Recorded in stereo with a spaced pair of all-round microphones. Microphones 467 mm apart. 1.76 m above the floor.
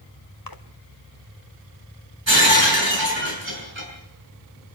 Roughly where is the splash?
Left.